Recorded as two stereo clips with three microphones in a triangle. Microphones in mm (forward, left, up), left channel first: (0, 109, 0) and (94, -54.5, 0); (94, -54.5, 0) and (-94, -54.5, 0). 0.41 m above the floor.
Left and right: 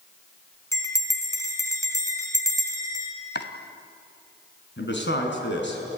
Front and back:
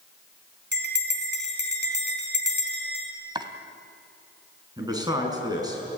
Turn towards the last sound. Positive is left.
turn(degrees=110)